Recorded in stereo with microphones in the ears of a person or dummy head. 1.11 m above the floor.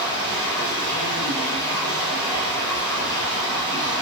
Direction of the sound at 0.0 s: 5° left (ahead or behind).